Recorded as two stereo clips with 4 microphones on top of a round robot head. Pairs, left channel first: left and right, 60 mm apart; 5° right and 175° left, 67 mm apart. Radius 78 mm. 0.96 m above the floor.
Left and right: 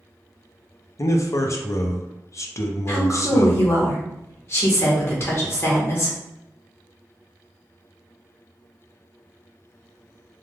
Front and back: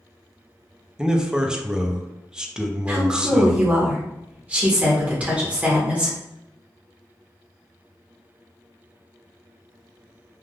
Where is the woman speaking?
110° left, 1.1 m.